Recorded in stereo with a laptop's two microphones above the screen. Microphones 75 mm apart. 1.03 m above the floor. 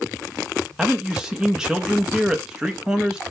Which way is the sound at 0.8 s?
10° right (ahead or behind).